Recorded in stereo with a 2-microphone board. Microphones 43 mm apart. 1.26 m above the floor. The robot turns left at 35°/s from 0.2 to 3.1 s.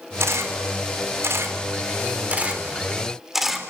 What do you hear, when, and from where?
0.2 s a camera shutter: 70° right (ahead or behind), 3.5 m; by 3.7 s 10° right (ahead or behind), 3.5 m